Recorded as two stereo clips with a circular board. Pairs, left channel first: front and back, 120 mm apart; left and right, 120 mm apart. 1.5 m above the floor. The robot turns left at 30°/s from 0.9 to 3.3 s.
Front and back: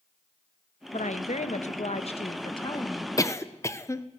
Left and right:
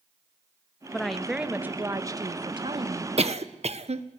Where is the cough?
60° right, 1.3 m; by 4.0 s 65° right, 1.3 m.